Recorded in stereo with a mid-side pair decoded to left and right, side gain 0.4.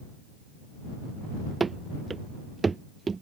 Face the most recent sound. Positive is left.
turn(degrees=-35)